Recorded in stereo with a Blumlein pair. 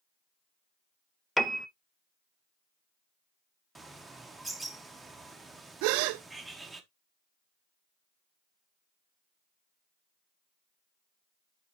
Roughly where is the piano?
Ahead.